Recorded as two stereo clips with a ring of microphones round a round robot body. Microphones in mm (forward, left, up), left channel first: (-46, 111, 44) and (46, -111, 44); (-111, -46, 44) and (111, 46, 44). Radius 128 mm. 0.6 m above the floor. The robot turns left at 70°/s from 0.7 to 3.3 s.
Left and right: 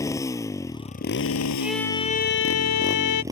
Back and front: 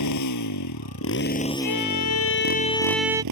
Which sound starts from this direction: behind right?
A violin, at 1.6 s.